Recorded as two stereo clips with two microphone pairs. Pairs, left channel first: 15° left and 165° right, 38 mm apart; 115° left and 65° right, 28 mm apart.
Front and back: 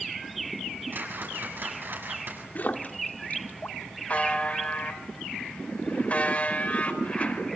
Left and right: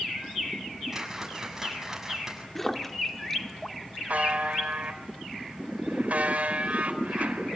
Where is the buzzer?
35° right, 4 m.